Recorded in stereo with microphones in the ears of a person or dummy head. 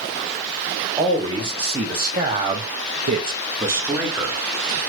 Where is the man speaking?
20° right (ahead or behind), 1.6 m; by 4.4 s 5° right (ahead or behind), 1.1 m.